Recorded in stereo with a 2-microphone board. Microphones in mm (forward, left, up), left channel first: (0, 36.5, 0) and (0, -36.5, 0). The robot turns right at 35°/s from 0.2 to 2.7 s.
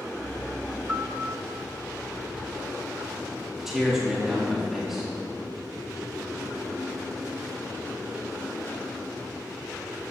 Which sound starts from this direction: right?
A piano, at 0.9 s.